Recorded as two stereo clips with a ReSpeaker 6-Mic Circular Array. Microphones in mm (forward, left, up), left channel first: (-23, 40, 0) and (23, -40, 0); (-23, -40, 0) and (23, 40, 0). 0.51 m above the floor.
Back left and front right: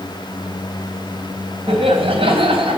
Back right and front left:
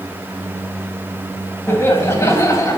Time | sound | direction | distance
1.7 | laughter | 60° right | 3.5 m